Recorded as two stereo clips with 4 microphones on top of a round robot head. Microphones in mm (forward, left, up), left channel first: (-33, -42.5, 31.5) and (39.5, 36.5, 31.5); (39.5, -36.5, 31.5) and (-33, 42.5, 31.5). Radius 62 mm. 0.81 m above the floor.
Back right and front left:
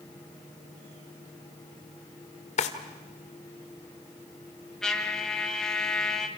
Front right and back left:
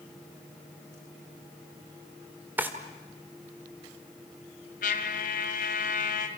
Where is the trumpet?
50° right, 2.5 m.